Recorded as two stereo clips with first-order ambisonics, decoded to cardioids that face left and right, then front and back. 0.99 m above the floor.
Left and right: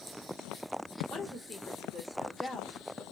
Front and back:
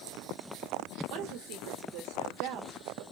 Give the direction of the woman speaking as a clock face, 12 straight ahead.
6 o'clock.